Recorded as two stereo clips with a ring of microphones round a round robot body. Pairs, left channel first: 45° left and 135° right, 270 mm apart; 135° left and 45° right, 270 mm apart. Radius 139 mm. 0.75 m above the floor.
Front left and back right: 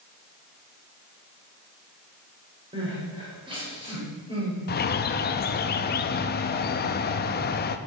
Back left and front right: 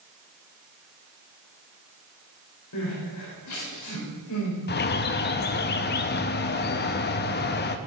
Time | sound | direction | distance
2.7 | crying | 155° left | 4 m
4.7 | a bird | 90° left | 0.6 m